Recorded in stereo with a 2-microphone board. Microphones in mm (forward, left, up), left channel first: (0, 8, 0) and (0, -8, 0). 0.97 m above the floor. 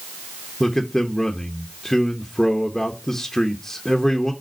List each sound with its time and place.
0.6 s a man speaking: 25° left (ahead or behind), 0.7 m